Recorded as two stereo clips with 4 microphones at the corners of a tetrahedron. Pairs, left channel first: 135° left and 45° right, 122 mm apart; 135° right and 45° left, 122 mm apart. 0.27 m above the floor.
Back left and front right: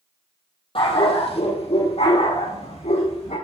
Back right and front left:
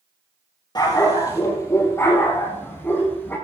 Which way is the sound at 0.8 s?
170° left.